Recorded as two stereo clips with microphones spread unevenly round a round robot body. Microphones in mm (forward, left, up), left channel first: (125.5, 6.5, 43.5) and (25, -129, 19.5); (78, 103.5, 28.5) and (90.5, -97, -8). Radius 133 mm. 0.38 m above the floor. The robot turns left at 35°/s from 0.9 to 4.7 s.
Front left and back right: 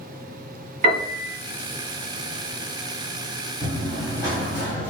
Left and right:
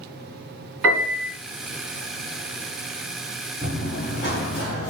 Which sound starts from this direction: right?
A piano, at 0.8 s.